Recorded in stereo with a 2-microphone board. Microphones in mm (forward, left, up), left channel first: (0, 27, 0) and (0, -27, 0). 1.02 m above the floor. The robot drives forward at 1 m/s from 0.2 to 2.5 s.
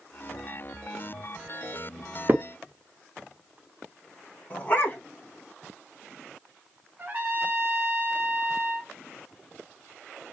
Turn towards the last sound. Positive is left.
turn(degrees=-35)  # may be behind; listen again after turning